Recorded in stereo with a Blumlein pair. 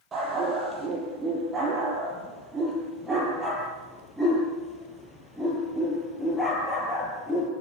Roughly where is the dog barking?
Ahead.